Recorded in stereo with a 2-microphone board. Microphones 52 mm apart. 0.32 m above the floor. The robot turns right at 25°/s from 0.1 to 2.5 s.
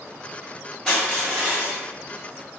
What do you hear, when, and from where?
0.9 s crushing: centre (ahead or behind), 1.7 m; by 1.8 s 15° right (ahead or behind), 1.7 m